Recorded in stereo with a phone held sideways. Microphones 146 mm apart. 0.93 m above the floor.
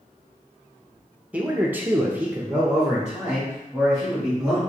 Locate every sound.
1.3 s a man speaking: 10° right (ahead or behind), 0.8 m; by 4.6 s 5° right (ahead or behind), 2.5 m